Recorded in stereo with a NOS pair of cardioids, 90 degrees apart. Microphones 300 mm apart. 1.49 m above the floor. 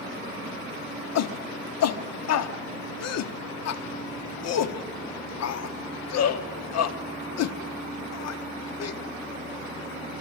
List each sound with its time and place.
1.1 s a shout: 60° left, 0.9 m